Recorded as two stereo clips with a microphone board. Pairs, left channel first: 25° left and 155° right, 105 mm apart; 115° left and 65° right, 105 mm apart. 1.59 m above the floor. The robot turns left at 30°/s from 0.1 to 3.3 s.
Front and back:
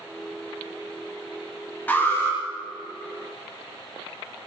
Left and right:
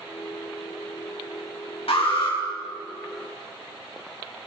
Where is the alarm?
95° left, 4.5 m; by 2.4 s 80° left, 4.5 m.